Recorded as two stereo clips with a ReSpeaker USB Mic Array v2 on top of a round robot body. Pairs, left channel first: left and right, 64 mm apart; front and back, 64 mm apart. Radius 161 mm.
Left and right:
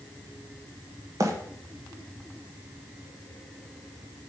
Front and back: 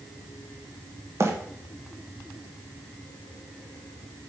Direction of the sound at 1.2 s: 130° right.